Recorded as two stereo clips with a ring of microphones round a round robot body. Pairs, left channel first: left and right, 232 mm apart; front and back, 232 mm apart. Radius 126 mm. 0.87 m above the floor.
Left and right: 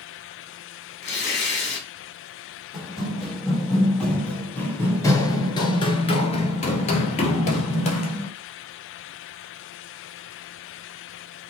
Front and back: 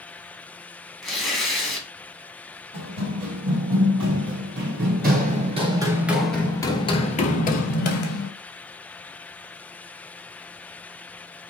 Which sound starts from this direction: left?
Tearing paper, at 1.0 s.